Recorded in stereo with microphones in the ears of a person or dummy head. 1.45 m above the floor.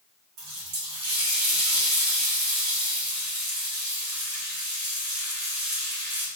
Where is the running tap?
50° right (ahead or behind), 2.5 m.